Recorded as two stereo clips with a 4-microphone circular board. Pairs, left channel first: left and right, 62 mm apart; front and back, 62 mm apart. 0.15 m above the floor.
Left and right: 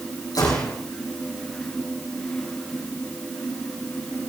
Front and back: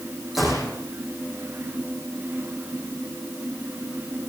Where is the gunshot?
90° left, 4.5 m.